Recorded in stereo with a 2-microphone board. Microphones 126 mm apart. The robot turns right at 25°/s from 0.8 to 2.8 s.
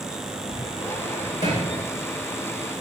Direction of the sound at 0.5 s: 50° left (ahead or behind).